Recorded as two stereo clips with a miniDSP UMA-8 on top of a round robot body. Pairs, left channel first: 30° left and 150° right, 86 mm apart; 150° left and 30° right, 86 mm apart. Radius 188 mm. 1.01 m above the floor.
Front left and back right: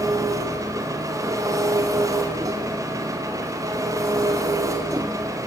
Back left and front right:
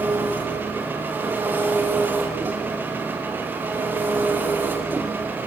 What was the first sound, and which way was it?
An engine running, 100° right.